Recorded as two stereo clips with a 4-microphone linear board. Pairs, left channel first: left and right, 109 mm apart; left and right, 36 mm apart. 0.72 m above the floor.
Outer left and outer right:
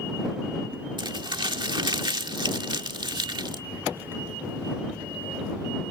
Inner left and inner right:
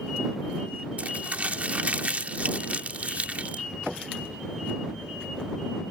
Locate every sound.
1.0 s crumpling: 45° right (ahead or behind)